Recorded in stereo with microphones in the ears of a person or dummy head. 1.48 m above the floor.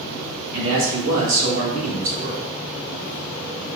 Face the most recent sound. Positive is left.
turn(degrees=-75)  # may be behind; listen again after turning